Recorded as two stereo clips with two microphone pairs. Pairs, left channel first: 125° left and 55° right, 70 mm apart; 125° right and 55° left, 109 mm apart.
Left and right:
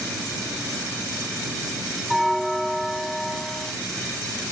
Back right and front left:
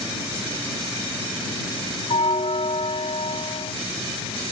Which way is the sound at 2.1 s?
150° right.